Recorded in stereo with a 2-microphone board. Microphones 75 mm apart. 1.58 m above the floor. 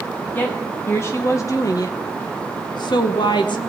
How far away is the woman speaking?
About 1.8 m.